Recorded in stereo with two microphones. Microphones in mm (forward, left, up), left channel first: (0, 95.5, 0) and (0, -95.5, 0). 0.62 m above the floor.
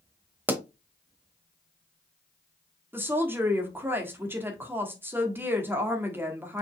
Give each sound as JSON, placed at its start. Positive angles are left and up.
{"t": 0.5, "sound": "a pop", "side_deg": -10, "distance_m": 0.8}
{"t": 2.9, "sound": "a woman speaking", "side_deg": -10, "distance_m": 1.5}